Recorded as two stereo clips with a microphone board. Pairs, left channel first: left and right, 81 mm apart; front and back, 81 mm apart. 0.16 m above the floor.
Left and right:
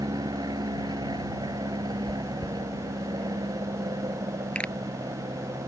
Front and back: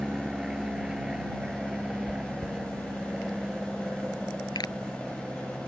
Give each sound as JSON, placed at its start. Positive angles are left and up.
{"t": 0.0, "sound": "an aircraft", "azimuth_deg": -100}
{"t": 2.1, "sound": "chewing", "azimuth_deg": 155}
{"t": 4.5, "sound": "a pop", "azimuth_deg": 20}